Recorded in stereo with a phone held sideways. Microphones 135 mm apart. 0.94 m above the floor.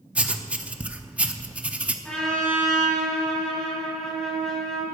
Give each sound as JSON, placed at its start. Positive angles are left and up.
{"t": 0.1, "sound": "writing", "side_deg": -10, "distance_m": 0.6}
{"t": 2.0, "sound": "a trumpet", "side_deg": 5, "distance_m": 4.0}